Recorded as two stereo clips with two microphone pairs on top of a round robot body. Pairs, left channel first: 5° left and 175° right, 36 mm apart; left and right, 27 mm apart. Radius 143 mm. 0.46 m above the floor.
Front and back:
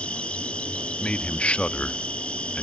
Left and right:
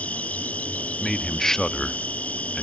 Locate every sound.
0.0 s an insect: 60° left, 2.5 m
1.0 s a man speaking: 25° left, 0.8 m